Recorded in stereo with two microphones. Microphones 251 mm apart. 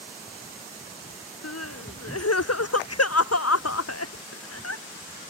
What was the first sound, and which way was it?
Crying, 70° left (ahead or behind).